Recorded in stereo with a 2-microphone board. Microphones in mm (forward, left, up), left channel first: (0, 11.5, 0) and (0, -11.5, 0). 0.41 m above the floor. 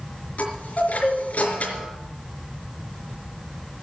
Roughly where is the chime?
Left.